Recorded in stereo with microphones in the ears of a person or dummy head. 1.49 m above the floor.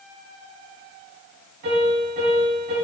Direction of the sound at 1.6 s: 55° right (ahead or behind).